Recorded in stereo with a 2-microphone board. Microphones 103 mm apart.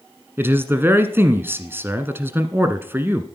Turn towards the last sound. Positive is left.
turn(degrees=-20)  # may be behind; listen again after turning